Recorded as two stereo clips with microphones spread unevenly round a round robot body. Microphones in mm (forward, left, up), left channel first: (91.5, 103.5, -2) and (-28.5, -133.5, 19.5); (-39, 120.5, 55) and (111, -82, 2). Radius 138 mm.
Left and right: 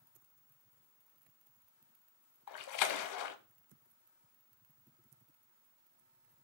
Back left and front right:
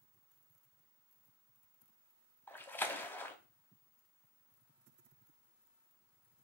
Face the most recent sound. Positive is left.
turn(degrees=50)